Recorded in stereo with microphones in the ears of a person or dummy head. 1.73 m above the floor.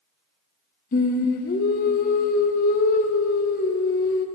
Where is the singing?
45° left (ahead or behind), 0.9 m.